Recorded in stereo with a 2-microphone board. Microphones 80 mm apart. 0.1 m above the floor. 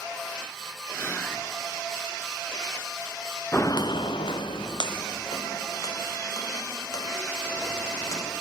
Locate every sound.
0.9 s whispering: 30° left (ahead or behind), 1.3 m
3.5 s footsteps: 30° left (ahead or behind), 0.6 m; by 8.3 s 45° left (ahead or behind), 4 m